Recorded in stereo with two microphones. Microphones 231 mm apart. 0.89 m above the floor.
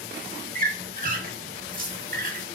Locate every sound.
0.6 s a squeak: 40° right (ahead or behind), 0.6 m